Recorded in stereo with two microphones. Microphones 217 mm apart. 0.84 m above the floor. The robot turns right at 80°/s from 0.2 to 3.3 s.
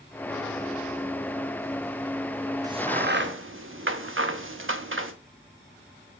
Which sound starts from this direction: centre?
A crack, at 2.6 s.